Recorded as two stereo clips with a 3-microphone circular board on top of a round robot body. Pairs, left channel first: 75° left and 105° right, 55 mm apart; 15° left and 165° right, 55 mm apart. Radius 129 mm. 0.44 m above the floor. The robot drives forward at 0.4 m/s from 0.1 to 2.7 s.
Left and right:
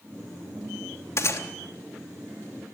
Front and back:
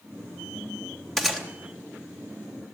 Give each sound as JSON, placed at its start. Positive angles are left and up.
{"t": 1.2, "sound": "a gunshot", "azimuth_deg": 100, "distance_m": 3.0}